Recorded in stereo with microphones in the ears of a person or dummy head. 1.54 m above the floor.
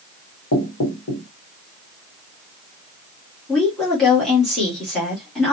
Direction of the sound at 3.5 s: 5° left (ahead or behind).